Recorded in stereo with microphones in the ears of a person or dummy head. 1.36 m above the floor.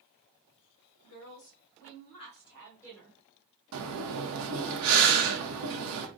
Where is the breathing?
65° right (ahead or behind), 0.7 m.